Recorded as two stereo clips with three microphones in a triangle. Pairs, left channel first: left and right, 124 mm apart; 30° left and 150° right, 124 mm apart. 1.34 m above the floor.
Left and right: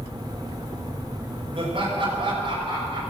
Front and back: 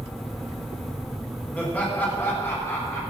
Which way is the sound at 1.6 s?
50° right.